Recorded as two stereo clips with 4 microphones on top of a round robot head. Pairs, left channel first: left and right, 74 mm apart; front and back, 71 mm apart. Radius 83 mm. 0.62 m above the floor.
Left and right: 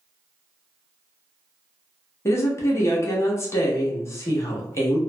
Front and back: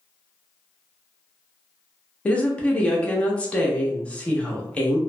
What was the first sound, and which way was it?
A woman speaking, 65° left.